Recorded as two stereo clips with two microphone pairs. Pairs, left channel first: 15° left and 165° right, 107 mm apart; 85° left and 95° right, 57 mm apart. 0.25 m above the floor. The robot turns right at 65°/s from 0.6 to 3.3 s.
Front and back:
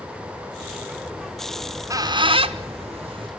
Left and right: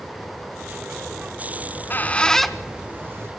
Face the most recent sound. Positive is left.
turn(degrees=-130)